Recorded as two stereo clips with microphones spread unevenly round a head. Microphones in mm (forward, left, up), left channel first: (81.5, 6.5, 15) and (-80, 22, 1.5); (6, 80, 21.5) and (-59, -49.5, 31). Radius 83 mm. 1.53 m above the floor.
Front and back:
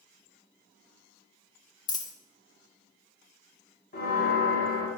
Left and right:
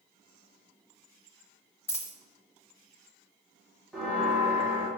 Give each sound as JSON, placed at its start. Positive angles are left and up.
{"t": 1.9, "sound": "a dropped coin", "azimuth_deg": 0, "distance_m": 0.9}
{"t": 3.9, "sound": "a bell", "azimuth_deg": -25, "distance_m": 1.6}